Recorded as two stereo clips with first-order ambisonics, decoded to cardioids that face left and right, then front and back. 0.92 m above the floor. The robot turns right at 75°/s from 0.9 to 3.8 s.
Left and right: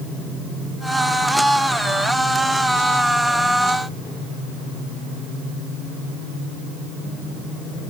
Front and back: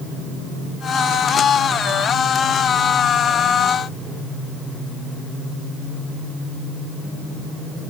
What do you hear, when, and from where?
Only background noise.